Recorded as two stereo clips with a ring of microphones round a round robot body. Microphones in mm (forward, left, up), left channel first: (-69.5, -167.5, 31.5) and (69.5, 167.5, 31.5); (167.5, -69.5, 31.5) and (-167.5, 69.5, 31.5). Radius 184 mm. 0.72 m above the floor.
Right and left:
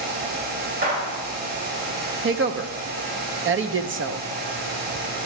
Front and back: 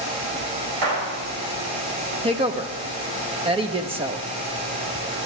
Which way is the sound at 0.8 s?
135° left.